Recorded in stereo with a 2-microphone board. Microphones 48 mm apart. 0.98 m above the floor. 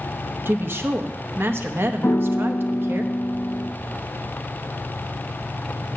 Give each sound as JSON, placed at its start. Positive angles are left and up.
{"t": 0.5, "sound": "a woman speaking", "side_deg": -50, "distance_m": 0.9}
{"t": 2.0, "sound": "a piano", "side_deg": 55, "distance_m": 0.5}